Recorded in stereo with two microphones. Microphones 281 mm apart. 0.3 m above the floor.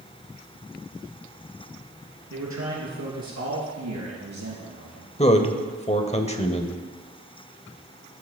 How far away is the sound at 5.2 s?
About 0.9 m.